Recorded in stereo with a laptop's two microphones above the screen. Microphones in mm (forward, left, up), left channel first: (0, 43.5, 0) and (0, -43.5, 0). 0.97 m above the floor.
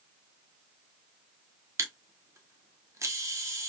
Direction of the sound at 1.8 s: 35° right (ahead or behind).